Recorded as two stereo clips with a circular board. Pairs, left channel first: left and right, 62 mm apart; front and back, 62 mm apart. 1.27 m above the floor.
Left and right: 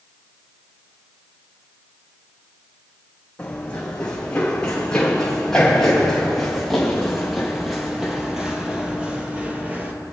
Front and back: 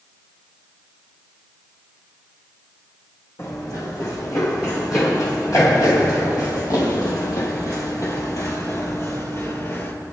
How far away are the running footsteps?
About 4 m.